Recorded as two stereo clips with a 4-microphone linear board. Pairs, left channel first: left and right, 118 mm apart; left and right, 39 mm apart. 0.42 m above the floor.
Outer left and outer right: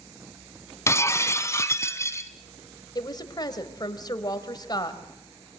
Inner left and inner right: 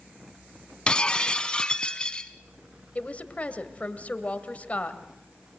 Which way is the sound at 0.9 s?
25° left (ahead or behind).